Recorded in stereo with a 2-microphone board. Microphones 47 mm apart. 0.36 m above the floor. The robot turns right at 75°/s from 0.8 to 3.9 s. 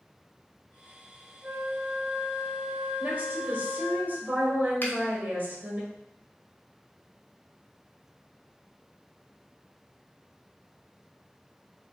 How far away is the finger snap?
About 1.1 m.